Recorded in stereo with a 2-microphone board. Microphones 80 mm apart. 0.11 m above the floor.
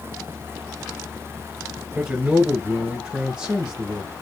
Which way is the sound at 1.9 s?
15° right (ahead or behind).